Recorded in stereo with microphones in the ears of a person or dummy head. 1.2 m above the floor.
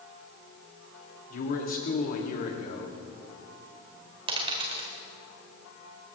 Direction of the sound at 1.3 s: 50° left (ahead or behind).